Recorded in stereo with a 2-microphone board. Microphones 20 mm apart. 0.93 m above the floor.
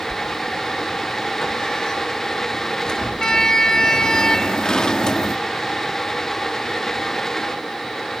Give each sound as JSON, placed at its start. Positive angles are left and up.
{"t": 0.1, "sound": "a sliding door", "side_deg": 35, "distance_m": 0.8}